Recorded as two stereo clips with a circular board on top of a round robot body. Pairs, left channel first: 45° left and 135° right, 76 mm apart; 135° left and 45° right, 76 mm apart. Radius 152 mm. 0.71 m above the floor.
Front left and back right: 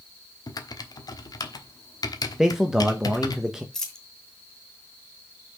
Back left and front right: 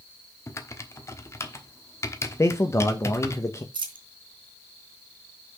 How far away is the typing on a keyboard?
About 1.2 m.